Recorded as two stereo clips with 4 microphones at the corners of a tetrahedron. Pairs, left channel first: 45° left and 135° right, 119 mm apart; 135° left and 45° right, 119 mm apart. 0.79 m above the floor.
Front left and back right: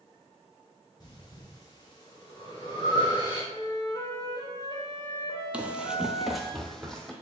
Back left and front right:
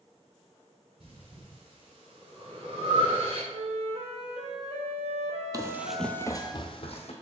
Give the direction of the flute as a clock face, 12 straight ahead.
12 o'clock.